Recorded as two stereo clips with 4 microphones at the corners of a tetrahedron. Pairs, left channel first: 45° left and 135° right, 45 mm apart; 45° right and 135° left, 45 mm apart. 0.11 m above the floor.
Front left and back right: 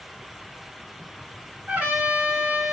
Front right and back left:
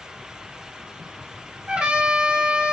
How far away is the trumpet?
About 1.9 m.